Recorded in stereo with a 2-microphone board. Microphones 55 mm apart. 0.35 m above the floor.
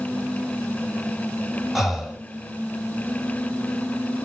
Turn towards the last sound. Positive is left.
turn(degrees=-5)  # may be behind; listen again after turning